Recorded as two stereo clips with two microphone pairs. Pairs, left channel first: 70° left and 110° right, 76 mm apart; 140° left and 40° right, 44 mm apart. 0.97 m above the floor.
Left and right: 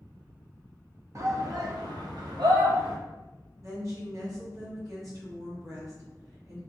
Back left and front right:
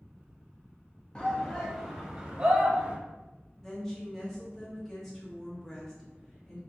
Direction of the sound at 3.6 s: 140° right.